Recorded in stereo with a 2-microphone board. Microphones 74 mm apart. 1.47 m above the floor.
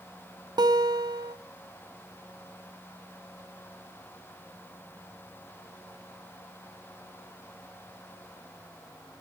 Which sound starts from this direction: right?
A guitar, at 0.6 s.